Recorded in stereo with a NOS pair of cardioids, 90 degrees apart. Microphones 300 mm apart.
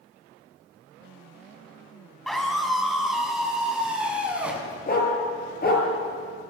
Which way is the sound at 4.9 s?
30° left.